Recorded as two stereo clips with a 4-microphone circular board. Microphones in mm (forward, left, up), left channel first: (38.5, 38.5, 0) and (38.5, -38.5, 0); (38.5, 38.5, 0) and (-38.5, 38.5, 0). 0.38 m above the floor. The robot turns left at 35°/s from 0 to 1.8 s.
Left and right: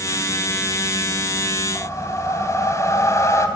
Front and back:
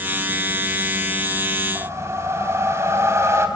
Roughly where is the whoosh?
Behind left.